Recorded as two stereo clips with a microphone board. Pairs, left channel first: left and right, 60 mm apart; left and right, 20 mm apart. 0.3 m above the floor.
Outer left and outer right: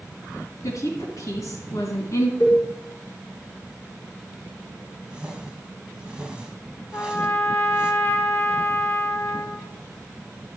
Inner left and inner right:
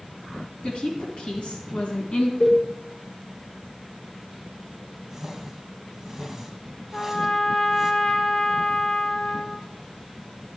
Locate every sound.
0.6 s a woman speaking: 65° left (ahead or behind), 2.5 m
2.4 s a cowbell: 70° left (ahead or behind), 3 m
5.1 s a whoosh: 15° right (ahead or behind), 1.0 m
6.9 s a trumpet: 40° left (ahead or behind), 0.6 m